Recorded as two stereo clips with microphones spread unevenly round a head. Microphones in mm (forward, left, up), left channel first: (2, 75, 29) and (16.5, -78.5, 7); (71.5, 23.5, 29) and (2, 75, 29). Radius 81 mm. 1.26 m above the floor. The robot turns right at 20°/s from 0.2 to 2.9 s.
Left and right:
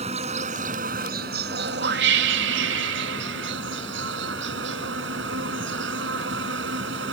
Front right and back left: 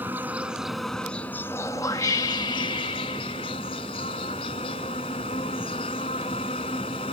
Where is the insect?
140° right; by 7.1 s 85° right.